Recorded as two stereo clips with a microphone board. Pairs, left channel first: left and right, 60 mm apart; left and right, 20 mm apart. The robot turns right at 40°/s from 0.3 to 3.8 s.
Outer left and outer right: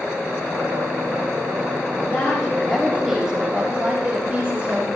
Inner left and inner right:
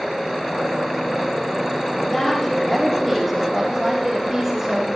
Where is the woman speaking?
140° left, 6 m; by 4.9 s 150° right, 6 m.